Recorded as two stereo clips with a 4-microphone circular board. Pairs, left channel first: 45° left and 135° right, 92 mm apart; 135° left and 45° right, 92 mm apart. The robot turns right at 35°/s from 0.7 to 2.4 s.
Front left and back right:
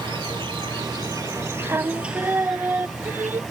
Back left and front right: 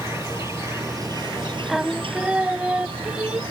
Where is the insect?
105° right; by 3.5 s 45° right.